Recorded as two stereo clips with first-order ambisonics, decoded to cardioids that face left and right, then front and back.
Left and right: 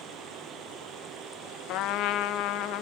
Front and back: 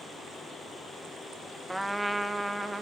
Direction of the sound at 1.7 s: 90° left.